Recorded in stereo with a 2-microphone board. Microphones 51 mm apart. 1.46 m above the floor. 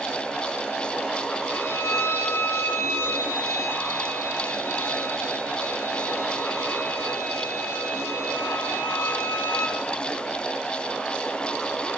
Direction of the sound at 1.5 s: 60° left (ahead or behind).